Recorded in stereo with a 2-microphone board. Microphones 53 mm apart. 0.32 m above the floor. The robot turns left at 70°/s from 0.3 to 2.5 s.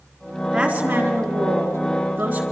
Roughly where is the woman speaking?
Ahead.